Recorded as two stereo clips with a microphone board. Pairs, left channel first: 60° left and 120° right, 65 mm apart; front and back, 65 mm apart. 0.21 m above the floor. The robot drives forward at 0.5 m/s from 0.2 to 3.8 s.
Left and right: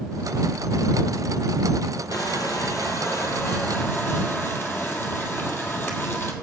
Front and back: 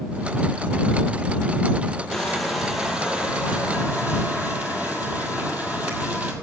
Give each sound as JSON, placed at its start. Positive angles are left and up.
{"t": 2.1, "sound": "crushing", "azimuth_deg": 85, "distance_m": 1.4}